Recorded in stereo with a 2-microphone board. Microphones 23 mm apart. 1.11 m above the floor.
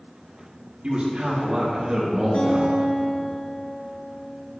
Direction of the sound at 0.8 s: 55° right (ahead or behind).